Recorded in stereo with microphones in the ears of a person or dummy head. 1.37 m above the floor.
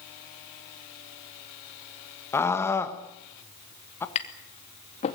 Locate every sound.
2.3 s a scream: 5° left (ahead or behind), 1.5 m
4.2 s tapping: 45° left (ahead or behind), 2.5 m